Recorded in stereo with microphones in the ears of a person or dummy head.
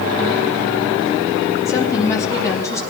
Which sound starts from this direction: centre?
A woman speaking, at 1.6 s.